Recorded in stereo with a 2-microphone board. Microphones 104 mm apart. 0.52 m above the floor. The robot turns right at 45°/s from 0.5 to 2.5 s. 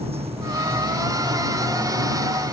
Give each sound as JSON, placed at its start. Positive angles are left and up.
{"t": 0.0, "sound": "running water", "azimuth_deg": -75}